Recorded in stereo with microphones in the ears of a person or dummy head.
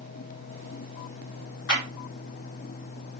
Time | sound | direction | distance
1.7 | a clap | 75° left (ahead or behind) | 2.5 m